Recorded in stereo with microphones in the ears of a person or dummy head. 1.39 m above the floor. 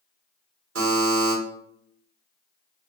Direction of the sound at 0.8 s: 85° right.